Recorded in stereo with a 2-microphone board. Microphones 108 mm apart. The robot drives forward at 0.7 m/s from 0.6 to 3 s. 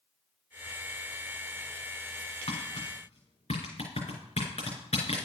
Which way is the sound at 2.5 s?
70° left (ahead or behind).